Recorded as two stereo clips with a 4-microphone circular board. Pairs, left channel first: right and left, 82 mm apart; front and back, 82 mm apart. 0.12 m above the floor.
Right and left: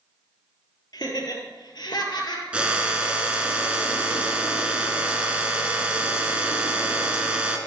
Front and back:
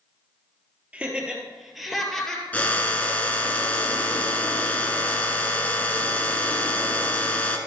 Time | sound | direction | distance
0.9 | laughter | 110° right | 2.5 m
2.5 | a drill | 35° left | 1.2 m